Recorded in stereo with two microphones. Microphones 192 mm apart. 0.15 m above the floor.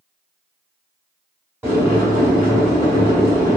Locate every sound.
1.6 s boiling: 10° right (ahead or behind), 1.4 m